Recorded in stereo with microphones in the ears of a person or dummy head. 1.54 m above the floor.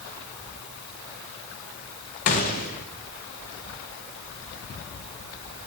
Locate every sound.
2.3 s a gunshot: 40° left (ahead or behind), 0.9 m